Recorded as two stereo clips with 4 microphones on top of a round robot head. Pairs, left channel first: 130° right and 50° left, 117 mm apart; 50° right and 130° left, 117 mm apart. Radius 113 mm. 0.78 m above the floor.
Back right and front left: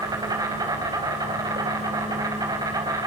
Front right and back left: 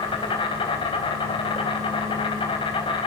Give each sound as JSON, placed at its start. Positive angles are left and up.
{"t": 0.0, "sound": "an insect", "azimuth_deg": -10, "distance_m": 4.0}